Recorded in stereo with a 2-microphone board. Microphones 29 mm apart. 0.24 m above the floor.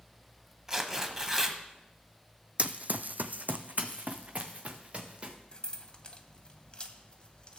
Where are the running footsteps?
45° right (ahead or behind), 0.6 m; by 5.3 s 40° right (ahead or behind), 2.0 m.